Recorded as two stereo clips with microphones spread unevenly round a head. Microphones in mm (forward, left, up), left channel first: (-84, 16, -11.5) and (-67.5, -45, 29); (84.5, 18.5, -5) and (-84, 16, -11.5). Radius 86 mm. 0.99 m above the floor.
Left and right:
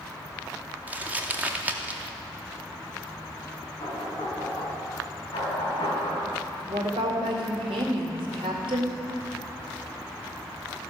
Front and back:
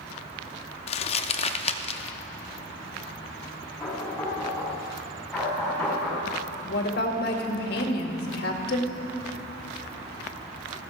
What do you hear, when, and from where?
0.9 s crumpling: 45° right, 0.6 m
3.8 s knocking: 85° left, 5 m
6.7 s a woman speaking: 35° right, 2 m